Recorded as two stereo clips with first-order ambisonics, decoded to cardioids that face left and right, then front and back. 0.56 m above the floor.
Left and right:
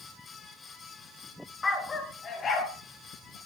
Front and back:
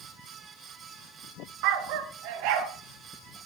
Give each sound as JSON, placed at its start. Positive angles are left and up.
{"t": 1.6, "sound": "a dog barking", "azimuth_deg": 165, "distance_m": 1.8}